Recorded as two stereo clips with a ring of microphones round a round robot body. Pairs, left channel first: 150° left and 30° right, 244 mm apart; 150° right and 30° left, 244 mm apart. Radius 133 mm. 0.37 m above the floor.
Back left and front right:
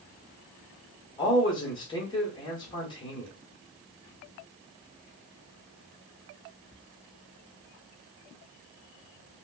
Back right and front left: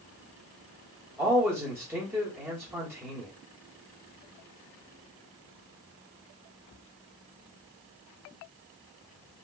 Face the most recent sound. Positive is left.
turn(degrees=100)